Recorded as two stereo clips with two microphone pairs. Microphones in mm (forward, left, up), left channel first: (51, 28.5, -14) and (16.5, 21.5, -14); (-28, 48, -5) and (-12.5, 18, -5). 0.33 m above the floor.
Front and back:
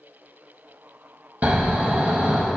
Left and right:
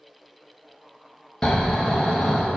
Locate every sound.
1.4 s snoring: 175° left, 1.2 m